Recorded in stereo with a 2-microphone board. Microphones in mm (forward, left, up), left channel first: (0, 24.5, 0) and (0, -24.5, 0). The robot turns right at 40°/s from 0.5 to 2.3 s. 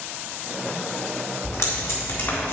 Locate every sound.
1.4 s tape being pulled: 65° left (ahead or behind), 2.5 m; by 2.5 s 55° left (ahead or behind), 2.5 m